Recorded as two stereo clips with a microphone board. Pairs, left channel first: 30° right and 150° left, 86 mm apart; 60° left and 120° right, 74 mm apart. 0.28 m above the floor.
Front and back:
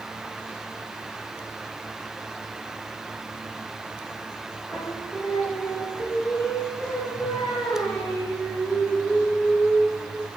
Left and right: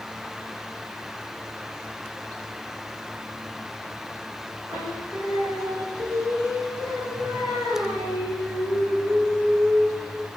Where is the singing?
100° right, 5 m.